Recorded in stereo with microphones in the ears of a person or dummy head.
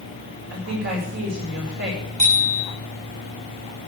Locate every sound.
0.5 s a woman speaking: 60° right (ahead or behind), 8 m
2.2 s a bicycle bell: 35° right (ahead or behind), 8 m